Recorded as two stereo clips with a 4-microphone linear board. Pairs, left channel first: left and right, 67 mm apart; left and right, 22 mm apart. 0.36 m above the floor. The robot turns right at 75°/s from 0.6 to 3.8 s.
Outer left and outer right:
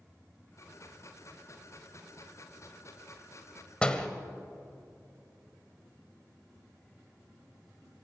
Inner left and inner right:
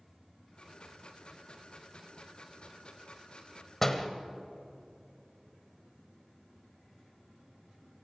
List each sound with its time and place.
3.8 s a door slam: 15° left (ahead or behind), 1.4 m